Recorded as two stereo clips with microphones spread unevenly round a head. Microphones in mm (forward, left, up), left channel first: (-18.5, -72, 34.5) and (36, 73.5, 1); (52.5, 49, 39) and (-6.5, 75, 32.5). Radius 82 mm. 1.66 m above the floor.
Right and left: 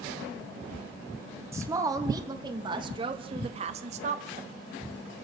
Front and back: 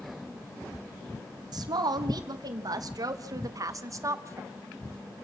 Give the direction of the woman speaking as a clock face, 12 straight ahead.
7 o'clock.